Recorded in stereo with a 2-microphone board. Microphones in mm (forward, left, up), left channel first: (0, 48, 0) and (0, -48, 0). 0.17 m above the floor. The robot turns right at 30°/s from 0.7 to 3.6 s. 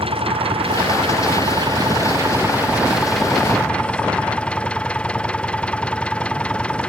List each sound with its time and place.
0.0 s an engine running: 75° right; by 6.9 s 15° left